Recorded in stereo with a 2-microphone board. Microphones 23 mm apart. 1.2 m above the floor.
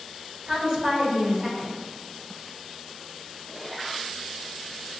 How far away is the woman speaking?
About 1.9 m.